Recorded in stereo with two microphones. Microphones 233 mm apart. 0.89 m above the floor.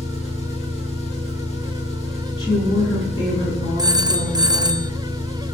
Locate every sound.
0.0 s an engine running: 30° left (ahead or behind), 7.5 m
2.4 s a woman speaking: 20° left (ahead or behind), 8 m
3.8 s a phone ringing: 15° right (ahead or behind), 0.6 m